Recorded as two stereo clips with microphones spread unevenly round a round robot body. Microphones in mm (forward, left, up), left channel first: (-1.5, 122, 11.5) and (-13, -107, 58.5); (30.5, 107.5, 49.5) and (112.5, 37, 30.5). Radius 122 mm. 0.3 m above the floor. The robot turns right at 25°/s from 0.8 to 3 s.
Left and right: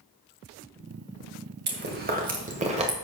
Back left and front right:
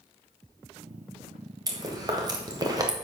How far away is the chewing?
About 1.9 m.